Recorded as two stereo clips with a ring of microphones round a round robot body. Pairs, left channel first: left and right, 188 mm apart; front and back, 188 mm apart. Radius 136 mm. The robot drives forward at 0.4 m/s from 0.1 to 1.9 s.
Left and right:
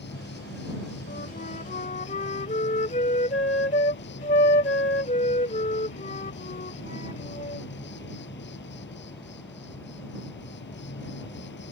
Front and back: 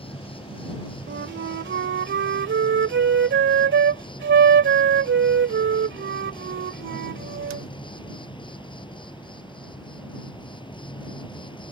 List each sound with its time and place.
0.0 s an insect: 60° left; by 11.7 s 65° left
1.1 s a flute: 150° left; by 7.7 s 155° left